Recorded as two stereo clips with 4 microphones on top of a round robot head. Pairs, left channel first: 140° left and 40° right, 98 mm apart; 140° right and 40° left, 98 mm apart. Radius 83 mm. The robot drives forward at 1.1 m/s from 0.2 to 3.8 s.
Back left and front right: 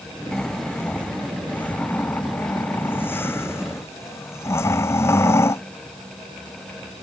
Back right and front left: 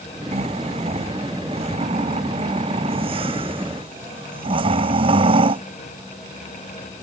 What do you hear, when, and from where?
0.3 s snoring: 55° left; by 5.6 s 75° left